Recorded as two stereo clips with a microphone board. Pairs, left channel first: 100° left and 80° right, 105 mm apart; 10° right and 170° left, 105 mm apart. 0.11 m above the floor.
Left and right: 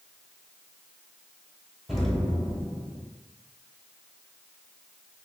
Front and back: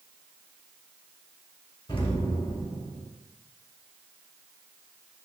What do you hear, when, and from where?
1.9 s an explosion: 10° left, 0.9 m